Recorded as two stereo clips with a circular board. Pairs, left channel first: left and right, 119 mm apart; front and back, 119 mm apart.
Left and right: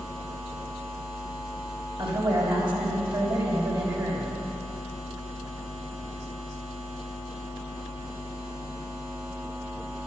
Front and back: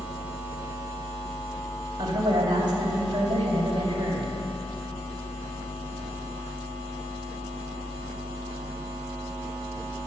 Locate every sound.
2.0 s a woman speaking: 130° right, 3 m